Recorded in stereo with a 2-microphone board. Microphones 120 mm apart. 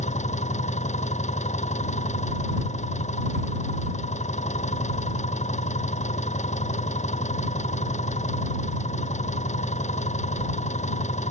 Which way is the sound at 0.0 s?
80° left.